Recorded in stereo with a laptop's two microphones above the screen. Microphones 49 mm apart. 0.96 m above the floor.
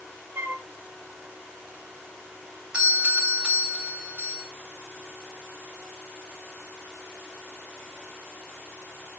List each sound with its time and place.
0.3 s a flute: 60° right (ahead or behind), 1.7 m
2.7 s a doorbell: 25° right (ahead or behind), 2.5 m